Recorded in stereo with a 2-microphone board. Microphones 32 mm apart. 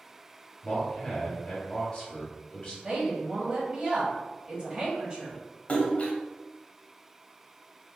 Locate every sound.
0.6 s a man speaking: 25° left (ahead or behind), 1.5 m
2.8 s a woman speaking: 30° right (ahead or behind), 1.1 m
5.7 s a splash: 45° left (ahead or behind), 0.8 m